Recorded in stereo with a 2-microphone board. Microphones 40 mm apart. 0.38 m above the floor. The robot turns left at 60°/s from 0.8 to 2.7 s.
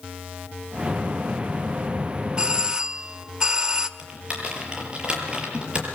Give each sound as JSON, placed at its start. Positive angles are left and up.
{"t": 2.4, "sound": "a doorbell", "side_deg": -20, "distance_m": 1.3}
{"t": 4.0, "sound": "typing on a keyboard", "side_deg": -30, "distance_m": 6.5}